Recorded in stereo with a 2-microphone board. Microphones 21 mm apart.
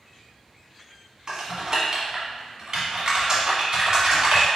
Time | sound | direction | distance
1.3 | typing on a keyboard | 35° right (ahead or behind) | 1.2 m